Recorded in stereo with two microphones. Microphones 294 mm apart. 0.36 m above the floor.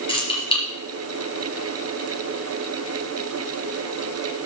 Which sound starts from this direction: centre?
Keys jangling, at 0.1 s.